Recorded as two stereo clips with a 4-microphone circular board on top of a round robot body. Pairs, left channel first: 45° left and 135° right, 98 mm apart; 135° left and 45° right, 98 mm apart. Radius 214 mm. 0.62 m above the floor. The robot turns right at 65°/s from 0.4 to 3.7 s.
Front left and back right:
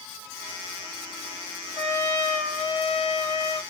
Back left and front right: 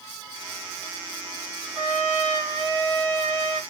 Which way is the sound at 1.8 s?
120° right.